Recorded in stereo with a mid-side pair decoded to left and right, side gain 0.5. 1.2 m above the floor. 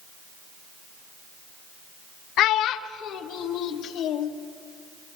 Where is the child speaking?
70° left, 0.8 m; by 4.3 s 65° left, 2 m.